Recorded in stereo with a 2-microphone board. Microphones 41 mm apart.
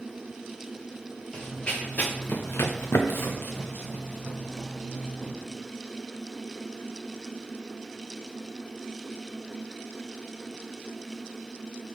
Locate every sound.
1.3 s running footsteps: 15° left (ahead or behind), 1.0 m; by 5.3 s 35° left (ahead or behind), 1.8 m